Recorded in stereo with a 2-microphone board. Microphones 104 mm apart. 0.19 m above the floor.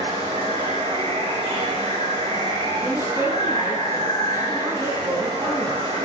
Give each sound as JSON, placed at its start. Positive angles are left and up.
{"t": 0.0, "sound": "running water", "side_deg": -80, "distance_m": 5.0}
{"t": 2.8, "sound": "a woman speaking", "side_deg": -25, "distance_m": 2.0}